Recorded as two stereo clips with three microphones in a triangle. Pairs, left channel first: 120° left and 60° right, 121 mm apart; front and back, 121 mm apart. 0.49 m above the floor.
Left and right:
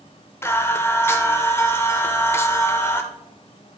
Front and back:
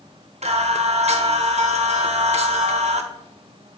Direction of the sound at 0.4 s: 175° right.